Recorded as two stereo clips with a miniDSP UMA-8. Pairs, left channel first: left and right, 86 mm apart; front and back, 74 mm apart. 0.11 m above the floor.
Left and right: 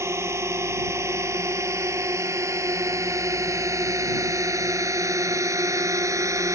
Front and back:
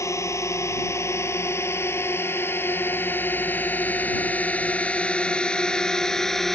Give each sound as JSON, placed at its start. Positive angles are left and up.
{"t": 0.0, "sound": "a drone", "azimuth_deg": -40}